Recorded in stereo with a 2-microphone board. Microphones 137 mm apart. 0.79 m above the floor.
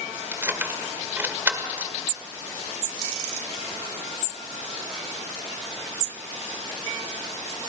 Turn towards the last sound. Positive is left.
turn(degrees=-15)  # may be behind; listen again after turning